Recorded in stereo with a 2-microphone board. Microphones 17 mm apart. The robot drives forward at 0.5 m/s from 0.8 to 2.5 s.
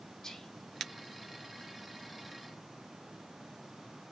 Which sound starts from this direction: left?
Whispering, at 0.2 s.